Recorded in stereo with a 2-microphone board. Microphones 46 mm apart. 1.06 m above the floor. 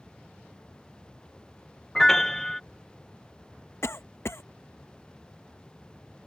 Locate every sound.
1.9 s a piano: 10° left (ahead or behind)
3.8 s a cough: 70° left (ahead or behind)